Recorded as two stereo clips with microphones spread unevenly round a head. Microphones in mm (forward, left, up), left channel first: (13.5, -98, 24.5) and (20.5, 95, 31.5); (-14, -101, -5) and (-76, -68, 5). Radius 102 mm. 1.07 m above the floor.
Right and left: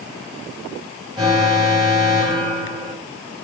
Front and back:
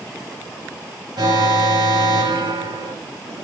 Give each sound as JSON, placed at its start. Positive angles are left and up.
{"t": 1.2, "sound": "an alarm", "azimuth_deg": 155, "distance_m": 6.5}